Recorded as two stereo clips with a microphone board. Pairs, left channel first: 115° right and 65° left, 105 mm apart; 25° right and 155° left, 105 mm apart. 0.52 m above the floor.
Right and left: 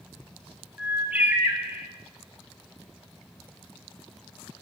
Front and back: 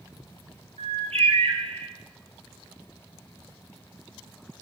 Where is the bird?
140° left, 1.5 m.